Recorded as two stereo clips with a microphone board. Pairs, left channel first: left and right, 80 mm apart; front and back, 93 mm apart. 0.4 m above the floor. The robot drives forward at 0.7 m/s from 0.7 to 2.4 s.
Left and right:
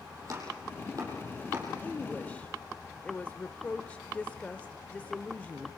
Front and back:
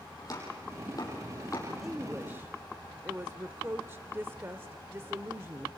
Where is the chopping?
45° right, 7 m; by 1.7 s 50° right, 6.5 m.